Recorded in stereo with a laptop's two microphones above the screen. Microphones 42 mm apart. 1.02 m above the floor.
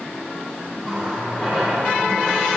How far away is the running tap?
About 1.9 m.